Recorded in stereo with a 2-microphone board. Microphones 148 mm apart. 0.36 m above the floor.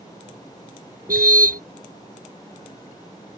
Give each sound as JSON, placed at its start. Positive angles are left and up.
{"t": 1.1, "sound": "a car horn", "side_deg": -80}